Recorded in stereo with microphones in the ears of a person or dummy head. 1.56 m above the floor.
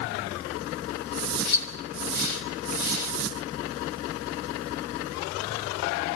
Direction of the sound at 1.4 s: 70° left (ahead or behind).